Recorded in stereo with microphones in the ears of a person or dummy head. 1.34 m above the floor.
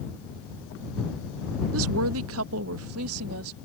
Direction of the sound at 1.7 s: 75° right (ahead or behind).